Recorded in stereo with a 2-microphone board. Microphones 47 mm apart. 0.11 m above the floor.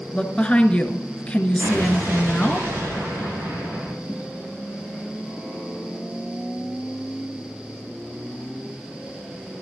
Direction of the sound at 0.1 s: 25° left (ahead or behind).